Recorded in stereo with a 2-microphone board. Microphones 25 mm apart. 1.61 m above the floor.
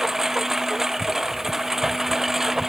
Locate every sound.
0.0 s a lawn mower: 10° right (ahead or behind)